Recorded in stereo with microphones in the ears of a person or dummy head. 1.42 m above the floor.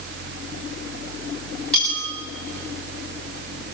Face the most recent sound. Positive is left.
turn(degrees=5)  # may be behind; listen again after turning